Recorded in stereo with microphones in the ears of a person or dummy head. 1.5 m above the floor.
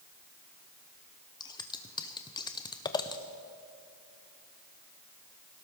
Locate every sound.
1.4 s scissors: 25° left (ahead or behind), 0.6 m